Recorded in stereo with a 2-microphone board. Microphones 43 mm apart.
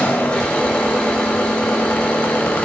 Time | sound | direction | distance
0.0 | an engine running | 20° left (ahead or behind) | 8 m